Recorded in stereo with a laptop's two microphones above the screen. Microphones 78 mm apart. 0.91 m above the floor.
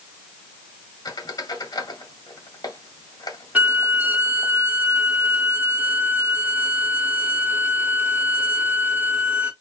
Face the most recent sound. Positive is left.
turn(degrees=-20)  # may be behind; listen again after turning